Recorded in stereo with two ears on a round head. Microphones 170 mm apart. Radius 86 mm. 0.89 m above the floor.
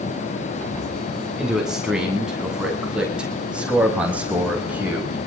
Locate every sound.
1.4 s a man speaking: 5° right (ahead or behind), 9 m; by 5.2 s 10° right (ahead or behind), 5 m